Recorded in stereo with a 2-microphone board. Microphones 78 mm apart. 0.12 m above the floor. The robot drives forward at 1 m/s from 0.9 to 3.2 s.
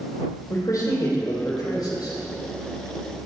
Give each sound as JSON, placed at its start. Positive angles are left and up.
{"t": 0.5, "sound": "a man speaking", "side_deg": 45, "distance_m": 3.5}